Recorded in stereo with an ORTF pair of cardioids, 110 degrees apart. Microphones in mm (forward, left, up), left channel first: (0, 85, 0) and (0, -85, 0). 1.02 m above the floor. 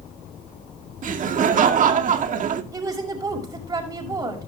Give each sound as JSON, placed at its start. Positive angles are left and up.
{"t": 1.0, "sound": "laughter", "azimuth_deg": -50, "distance_m": 2.0}
{"t": 2.7, "sound": "a woman speaking", "azimuth_deg": -20, "distance_m": 6.5}